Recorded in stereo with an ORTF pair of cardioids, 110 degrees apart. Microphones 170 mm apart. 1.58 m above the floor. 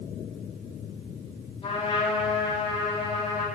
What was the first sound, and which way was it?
A trumpet, 35° left.